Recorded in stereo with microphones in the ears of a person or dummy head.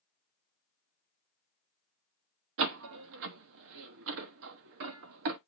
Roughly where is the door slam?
Right.